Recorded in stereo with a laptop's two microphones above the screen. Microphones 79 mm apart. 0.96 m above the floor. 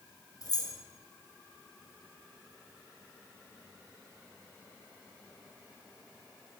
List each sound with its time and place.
0.4 s keys jangling: 50° left (ahead or behind), 0.8 m